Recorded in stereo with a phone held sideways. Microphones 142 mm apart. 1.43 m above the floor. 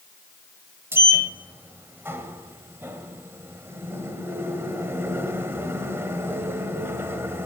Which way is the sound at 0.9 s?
20° right (ahead or behind).